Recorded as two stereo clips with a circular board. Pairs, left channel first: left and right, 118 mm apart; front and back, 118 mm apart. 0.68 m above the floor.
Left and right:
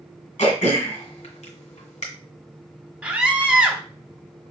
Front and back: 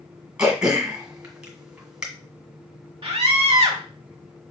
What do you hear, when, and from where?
0.4 s throat clearing: 100° left, 1.7 m
3.0 s a scream: 155° right, 0.9 m